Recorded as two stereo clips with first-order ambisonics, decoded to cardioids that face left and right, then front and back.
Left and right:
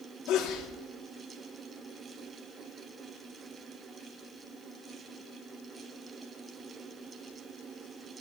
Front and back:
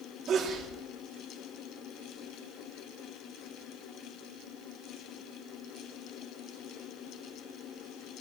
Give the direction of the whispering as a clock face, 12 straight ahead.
I don't hear whispering.